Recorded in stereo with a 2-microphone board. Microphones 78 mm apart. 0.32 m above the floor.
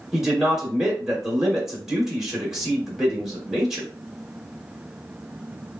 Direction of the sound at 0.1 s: 5° right (ahead or behind).